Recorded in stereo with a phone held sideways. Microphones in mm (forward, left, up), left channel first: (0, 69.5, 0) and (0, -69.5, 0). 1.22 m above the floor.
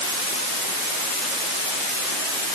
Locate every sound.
Only background noise.